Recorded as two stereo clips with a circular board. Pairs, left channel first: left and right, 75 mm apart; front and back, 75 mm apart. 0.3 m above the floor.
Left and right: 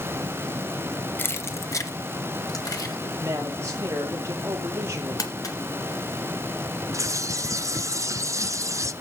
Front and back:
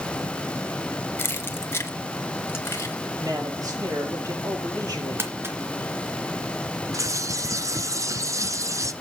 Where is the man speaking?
145° right, 8 m.